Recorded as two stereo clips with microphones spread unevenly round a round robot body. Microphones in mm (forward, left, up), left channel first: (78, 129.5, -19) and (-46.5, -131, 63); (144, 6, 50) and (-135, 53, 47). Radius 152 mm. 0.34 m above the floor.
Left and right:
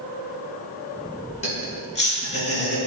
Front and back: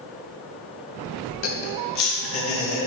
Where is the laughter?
5° left, 2.5 m.